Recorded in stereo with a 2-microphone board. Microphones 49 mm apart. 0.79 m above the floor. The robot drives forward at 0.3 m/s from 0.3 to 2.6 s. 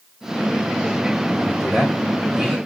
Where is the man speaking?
10° right (ahead or behind), 1.5 m.